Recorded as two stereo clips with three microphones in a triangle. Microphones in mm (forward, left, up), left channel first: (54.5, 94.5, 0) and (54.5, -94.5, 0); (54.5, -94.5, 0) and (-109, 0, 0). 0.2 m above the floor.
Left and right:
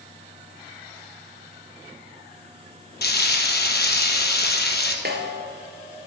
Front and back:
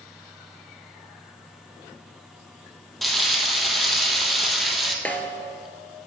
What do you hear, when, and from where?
3.0 s frying: 60° left, 1.2 m
5.0 s a snare drum: 110° right, 1.3 m